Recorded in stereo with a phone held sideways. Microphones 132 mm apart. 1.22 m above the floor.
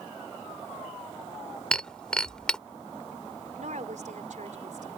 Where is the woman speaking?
70° right (ahead or behind).